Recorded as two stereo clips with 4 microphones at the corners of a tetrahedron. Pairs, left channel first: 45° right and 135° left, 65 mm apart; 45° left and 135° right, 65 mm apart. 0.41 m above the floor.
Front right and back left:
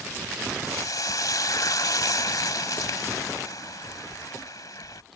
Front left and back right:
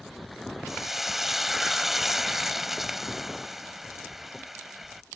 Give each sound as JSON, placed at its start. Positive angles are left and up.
{"t": 0.7, "sound": "frying", "azimuth_deg": -50}